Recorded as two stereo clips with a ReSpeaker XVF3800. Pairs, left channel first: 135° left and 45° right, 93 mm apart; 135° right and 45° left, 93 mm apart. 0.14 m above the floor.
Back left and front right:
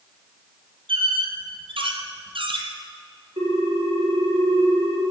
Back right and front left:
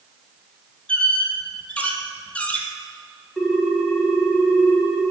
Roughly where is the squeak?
Ahead right.